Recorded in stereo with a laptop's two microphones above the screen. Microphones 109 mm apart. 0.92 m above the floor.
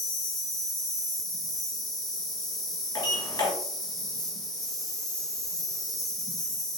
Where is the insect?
5° left (ahead or behind), 1.2 m.